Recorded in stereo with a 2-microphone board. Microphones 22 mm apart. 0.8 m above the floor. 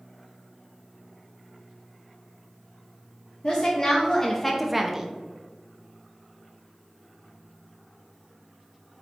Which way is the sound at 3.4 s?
35° left (ahead or behind).